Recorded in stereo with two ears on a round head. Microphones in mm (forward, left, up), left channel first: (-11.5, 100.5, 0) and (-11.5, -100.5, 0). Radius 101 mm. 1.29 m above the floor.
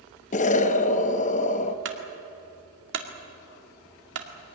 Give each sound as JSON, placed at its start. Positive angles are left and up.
{"t": 0.3, "sound": "an explosion", "side_deg": 35, "distance_m": 0.9}
{"t": 1.9, "sound": "a clunk", "side_deg": -55, "distance_m": 2.0}